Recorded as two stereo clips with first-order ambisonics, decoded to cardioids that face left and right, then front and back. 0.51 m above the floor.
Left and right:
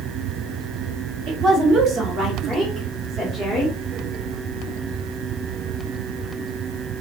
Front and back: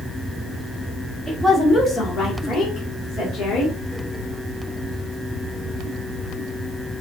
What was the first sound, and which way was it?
A woman speaking, 95° right.